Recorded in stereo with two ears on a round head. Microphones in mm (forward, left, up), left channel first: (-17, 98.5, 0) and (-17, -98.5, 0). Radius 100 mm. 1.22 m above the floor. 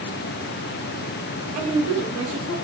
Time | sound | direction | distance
1.6 | a woman speaking | 75° right (ahead or behind) | 1.6 m